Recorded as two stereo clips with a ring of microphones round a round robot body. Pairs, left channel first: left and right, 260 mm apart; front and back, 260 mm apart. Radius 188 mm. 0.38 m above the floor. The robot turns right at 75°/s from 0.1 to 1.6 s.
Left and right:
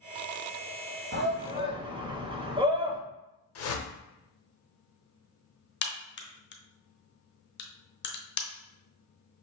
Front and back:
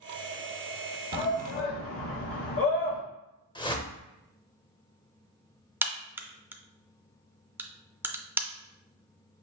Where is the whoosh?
70° left, 0.9 m.